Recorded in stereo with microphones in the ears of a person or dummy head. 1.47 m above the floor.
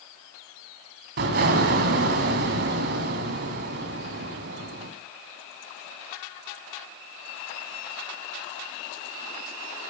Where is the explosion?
50° right (ahead or behind), 1.9 m.